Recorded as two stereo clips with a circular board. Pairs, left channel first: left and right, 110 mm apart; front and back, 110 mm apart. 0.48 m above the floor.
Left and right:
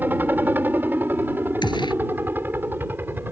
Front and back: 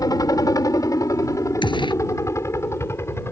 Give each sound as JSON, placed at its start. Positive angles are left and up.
{"t": 0.0, "sound": "a helicopter", "azimuth_deg": -30}
{"t": 1.6, "sound": "a gunshot", "azimuth_deg": 45}